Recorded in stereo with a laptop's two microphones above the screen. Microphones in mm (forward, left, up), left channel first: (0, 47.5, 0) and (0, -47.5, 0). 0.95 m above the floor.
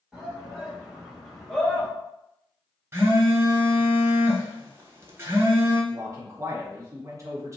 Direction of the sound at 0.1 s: 5° right (ahead or behind).